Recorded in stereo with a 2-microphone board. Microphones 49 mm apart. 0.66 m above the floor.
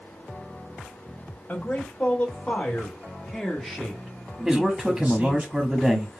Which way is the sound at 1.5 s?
40° left (ahead or behind).